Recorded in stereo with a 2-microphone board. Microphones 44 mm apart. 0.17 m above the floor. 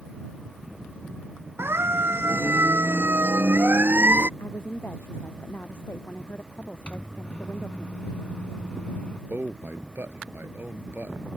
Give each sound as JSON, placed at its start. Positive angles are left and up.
{"t": 1.6, "sound": "a siren", "side_deg": -70}
{"t": 4.4, "sound": "a woman speaking", "side_deg": 60}
{"t": 6.9, "sound": "a microwave", "side_deg": 30}
{"t": 9.3, "sound": "a man speaking", "side_deg": -55}